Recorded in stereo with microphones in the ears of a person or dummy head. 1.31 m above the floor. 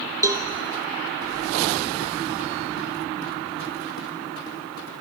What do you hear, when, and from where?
0.2 s a cowbell: 15° right (ahead or behind), 0.7 m